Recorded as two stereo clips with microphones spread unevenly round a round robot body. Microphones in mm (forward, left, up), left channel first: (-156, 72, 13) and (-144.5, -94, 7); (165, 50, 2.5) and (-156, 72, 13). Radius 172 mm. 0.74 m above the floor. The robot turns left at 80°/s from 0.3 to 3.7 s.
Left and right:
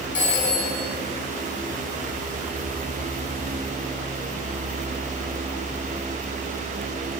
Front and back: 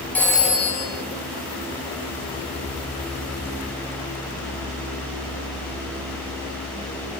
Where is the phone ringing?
80° left, 4.5 m; by 0.8 s 35° left, 4.5 m.